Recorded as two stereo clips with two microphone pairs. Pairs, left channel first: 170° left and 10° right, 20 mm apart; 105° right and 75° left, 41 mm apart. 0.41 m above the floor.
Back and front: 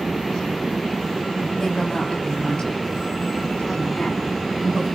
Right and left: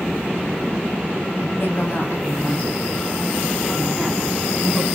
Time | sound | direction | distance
1.6 | a woman speaking | 135° right | 2.5 m